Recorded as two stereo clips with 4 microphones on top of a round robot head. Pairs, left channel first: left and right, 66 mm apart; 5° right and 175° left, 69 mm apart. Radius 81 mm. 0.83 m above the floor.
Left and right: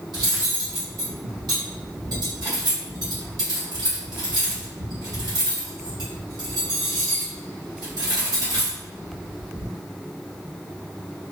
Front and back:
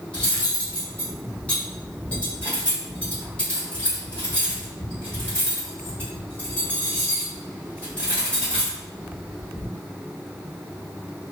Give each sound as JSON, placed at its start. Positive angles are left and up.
{"t": 0.1, "sound": "cutlery clinking", "azimuth_deg": -80, "distance_m": 1.8}